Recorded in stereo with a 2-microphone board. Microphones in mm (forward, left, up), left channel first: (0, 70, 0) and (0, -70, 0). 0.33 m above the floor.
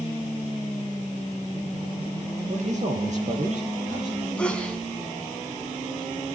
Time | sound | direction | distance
2.5 | a man speaking | 55° right (ahead or behind) | 7 m
4.4 | a sneeze | 10° left (ahead or behind) | 3.5 m